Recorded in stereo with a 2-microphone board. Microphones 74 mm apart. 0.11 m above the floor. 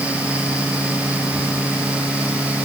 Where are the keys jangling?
I don't hear keys jangling.